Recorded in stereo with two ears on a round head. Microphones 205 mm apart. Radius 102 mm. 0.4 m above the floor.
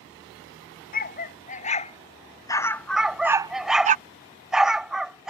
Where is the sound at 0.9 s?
40° left (ahead or behind); by 4.0 s 35° right (ahead or behind).